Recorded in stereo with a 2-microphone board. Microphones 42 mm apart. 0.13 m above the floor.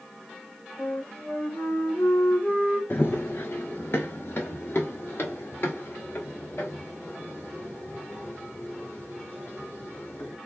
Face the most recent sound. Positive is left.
turn(degrees=75)  # may be behind; listen again after turning